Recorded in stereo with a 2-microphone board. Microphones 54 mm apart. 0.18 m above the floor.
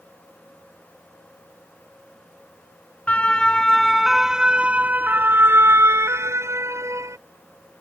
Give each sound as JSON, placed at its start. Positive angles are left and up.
{"t": 3.1, "sound": "a siren", "side_deg": 25}